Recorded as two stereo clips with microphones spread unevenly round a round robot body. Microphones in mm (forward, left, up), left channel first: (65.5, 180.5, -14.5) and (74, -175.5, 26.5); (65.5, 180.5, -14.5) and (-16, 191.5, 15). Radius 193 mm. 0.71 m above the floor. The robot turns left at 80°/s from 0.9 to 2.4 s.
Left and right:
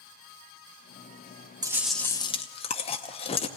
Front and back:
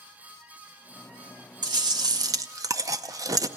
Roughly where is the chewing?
Behind.